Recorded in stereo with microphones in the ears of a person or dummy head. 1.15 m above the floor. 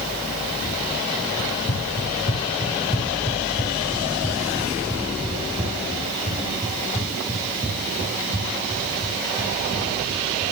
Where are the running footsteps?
55° left (ahead or behind), 2 m; by 10.4 s 30° right (ahead or behind), 7.5 m.